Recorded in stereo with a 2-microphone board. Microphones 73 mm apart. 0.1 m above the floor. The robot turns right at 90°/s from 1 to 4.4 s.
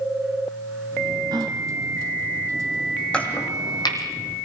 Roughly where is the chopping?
Centre.